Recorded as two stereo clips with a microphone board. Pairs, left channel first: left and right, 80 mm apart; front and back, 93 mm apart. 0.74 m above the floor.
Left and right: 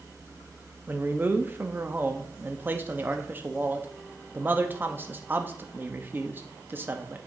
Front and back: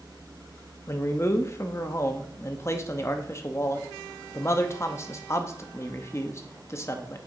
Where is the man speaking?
40° right, 0.8 m.